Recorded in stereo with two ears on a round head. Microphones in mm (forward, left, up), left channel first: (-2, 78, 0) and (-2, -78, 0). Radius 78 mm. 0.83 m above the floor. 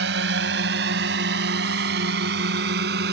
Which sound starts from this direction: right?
A drone, at 0.0 s.